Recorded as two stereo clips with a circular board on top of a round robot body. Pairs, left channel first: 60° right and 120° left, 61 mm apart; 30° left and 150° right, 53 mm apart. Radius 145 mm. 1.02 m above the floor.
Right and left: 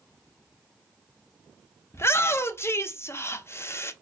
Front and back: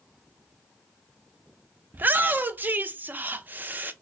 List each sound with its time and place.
1.9 s a shout: 100° right, 0.8 m